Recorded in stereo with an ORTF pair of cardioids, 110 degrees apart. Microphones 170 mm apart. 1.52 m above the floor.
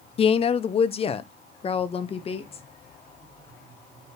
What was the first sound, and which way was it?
A woman speaking, 40° left.